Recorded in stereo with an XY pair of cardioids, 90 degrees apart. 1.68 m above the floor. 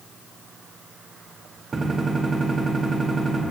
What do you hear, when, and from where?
1.7 s a gunshot: 40° right, 4 m